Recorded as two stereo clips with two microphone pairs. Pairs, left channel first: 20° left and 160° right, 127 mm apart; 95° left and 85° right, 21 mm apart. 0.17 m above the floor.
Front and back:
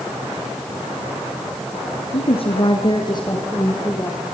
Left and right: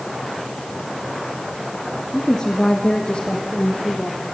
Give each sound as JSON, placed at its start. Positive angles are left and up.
{"t": 2.1, "sound": "a woman speaking", "azimuth_deg": 30, "distance_m": 2.5}